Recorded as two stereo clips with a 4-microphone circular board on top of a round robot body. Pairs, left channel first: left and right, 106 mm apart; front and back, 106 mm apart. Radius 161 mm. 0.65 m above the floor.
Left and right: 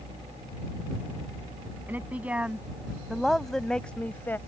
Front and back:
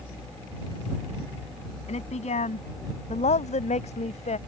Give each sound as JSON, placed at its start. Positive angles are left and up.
{"t": 1.9, "sound": "a woman speaking", "azimuth_deg": -15}